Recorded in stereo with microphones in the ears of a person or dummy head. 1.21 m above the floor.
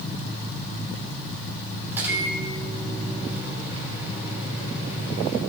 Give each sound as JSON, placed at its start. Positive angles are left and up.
{"t": 1.9, "sound": "a microwave", "side_deg": -15, "distance_m": 3.0}